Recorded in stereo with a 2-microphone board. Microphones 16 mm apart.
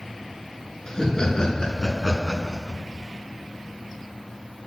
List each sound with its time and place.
0.9 s laughter: 35° left (ahead or behind), 3.5 m